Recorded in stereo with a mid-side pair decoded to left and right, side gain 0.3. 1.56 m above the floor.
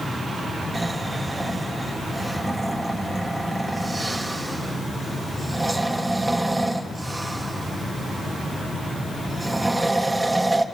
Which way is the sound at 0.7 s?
20° right.